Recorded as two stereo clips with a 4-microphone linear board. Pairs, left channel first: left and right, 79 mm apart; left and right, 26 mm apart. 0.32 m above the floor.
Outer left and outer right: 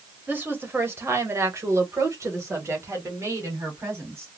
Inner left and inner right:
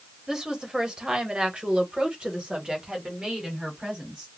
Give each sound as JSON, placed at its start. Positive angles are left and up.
{"t": 0.3, "sound": "a woman speaking", "side_deg": -25, "distance_m": 1.1}